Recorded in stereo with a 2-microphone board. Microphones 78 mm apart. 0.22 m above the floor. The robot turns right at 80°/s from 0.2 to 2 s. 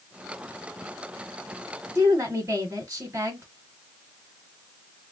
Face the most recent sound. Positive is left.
turn(degrees=-35)  # may be behind; listen again after turning